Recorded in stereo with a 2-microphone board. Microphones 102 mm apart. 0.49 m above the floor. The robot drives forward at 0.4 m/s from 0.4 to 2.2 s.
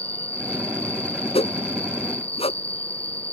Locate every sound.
0.0 s an insect: 80° left
1.4 s a whoosh: 80° left; by 2.6 s 75° left (ahead or behind)